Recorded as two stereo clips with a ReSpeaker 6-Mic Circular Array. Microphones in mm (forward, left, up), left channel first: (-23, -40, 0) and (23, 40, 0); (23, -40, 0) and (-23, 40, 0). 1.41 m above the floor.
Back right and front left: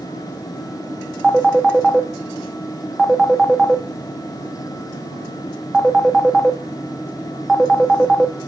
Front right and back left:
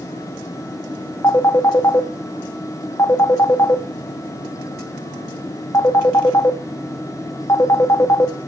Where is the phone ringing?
20° right, 1.1 m.